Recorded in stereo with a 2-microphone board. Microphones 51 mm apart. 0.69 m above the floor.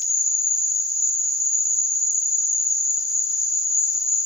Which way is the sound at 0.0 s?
85° left.